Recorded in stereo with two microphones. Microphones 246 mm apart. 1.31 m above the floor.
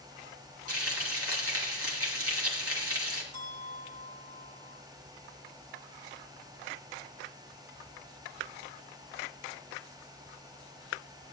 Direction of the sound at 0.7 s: 65° right (ahead or behind).